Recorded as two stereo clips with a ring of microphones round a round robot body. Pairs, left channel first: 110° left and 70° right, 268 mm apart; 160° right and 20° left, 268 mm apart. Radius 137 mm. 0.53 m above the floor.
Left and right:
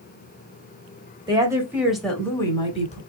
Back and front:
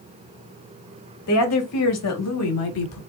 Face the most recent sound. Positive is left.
turn(degrees=175)